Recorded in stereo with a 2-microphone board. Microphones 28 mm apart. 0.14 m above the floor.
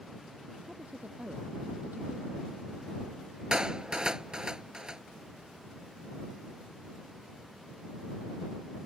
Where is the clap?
25° right (ahead or behind).